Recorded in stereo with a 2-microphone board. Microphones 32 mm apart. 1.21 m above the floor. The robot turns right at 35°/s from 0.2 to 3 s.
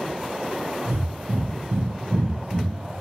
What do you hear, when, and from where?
0.9 s breathing: 75° right (ahead or behind), 0.8 m; by 2.9 s 25° right (ahead or behind), 0.8 m